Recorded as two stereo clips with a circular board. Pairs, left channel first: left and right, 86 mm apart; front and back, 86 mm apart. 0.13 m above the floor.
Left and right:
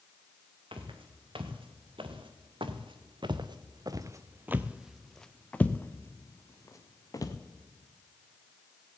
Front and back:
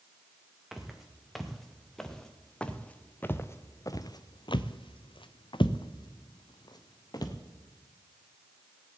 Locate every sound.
0.7 s footsteps: 95° right, 2.5 m; by 7.3 s 45° left, 1.8 m